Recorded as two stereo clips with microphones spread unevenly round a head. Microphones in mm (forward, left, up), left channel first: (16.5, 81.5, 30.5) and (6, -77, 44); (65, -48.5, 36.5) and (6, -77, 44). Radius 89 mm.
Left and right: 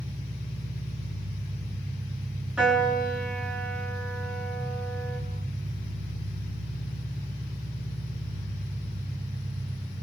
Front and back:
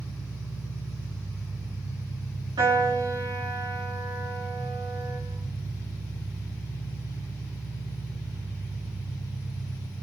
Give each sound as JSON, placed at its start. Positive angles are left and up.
{"t": 0.0, "sound": "an engine running", "azimuth_deg": -165, "distance_m": 3.0}
{"t": 2.6, "sound": "a piano", "azimuth_deg": 180, "distance_m": 4.5}